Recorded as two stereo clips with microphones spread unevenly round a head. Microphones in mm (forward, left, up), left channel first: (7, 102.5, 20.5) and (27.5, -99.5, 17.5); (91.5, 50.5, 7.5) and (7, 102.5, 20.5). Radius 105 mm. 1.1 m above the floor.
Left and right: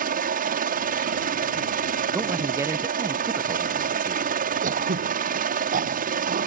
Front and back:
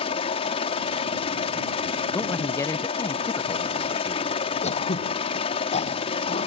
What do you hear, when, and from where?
0.0 s a helicopter: 40° right
2.1 s a man speaking: 15° right
4.6 s throat clearing: 30° right